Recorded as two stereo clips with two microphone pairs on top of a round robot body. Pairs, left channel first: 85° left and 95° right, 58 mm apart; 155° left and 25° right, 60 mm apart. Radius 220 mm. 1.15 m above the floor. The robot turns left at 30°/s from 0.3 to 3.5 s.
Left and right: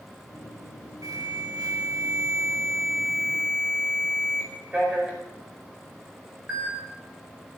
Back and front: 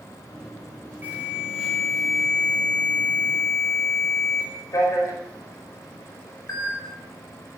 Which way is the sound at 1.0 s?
90° right.